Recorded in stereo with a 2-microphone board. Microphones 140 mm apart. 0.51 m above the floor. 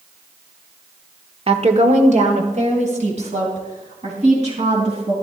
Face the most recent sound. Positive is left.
turn(degrees=-50)  # may be behind; listen again after turning